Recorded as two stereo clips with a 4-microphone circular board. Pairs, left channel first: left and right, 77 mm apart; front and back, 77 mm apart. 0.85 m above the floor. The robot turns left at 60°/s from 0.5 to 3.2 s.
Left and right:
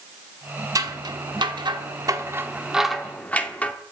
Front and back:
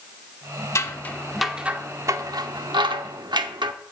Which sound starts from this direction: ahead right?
Scissors, at 0.8 s.